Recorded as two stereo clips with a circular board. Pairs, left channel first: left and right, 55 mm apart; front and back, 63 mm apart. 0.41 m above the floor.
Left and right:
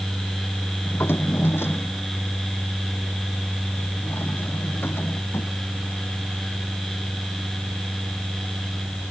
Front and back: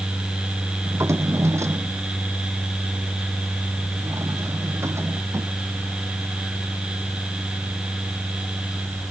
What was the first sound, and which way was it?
A drawer, 135° left.